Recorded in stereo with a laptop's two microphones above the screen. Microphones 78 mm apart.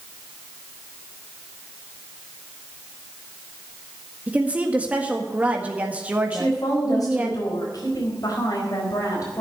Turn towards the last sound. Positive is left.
turn(degrees=50)  # may be behind; listen again after turning